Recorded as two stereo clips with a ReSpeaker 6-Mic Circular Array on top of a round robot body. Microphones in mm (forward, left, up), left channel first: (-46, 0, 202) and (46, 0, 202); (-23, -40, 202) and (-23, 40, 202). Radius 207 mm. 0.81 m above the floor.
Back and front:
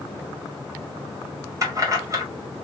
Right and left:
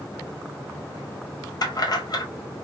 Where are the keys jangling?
55° right, 1.3 m.